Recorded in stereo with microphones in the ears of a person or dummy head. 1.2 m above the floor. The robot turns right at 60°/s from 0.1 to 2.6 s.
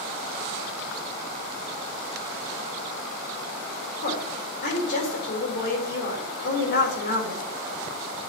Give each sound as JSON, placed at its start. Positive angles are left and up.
{"t": 4.0, "sound": "a woman speaking", "side_deg": 50, "distance_m": 4.0}